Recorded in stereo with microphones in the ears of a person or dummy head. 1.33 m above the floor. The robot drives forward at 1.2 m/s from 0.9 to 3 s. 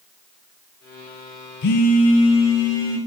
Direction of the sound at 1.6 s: 55° left (ahead or behind).